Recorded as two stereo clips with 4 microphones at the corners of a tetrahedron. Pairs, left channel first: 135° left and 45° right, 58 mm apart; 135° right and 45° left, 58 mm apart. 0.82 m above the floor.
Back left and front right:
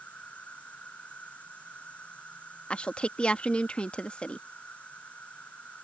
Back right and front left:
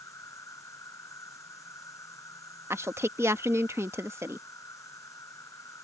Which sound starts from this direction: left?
A woman speaking, at 2.7 s.